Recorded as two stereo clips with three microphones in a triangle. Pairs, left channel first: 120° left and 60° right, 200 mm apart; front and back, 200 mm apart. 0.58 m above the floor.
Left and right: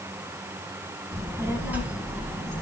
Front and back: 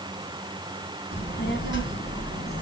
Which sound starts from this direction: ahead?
A child speaking, at 1.1 s.